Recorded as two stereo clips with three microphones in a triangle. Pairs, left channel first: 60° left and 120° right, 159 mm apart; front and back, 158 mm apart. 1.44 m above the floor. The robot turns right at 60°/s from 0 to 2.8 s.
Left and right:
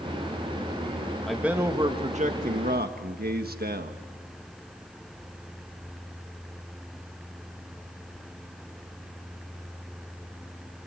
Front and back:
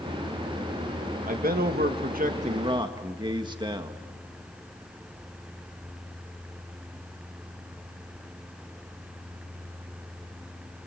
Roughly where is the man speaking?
Behind left.